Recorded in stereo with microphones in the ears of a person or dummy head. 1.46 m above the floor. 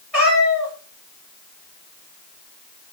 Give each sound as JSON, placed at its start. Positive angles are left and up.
{"t": 0.1, "sound": "a cat meowing", "side_deg": -5, "distance_m": 1.7}